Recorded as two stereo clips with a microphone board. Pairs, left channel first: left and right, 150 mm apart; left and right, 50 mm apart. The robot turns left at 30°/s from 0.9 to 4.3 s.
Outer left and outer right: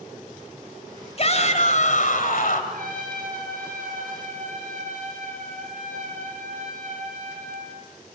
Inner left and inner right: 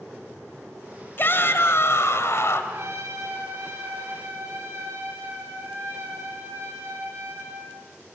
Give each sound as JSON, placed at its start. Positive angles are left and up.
{"t": 1.2, "sound": "a shout", "azimuth_deg": 130, "distance_m": 3.0}
{"t": 2.7, "sound": "a trumpet", "azimuth_deg": -70, "distance_m": 9.0}